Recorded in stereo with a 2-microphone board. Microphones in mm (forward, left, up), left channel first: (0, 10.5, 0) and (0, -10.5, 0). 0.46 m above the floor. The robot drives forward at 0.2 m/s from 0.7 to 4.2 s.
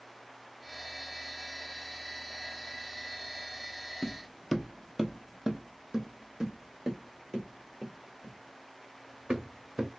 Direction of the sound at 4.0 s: 20° left (ahead or behind).